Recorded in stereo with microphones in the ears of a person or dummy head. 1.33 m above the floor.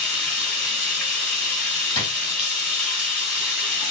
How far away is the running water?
About 1.7 m.